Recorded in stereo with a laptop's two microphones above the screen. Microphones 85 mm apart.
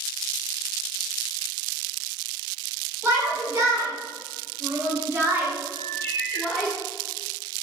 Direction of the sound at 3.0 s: 40° right (ahead or behind).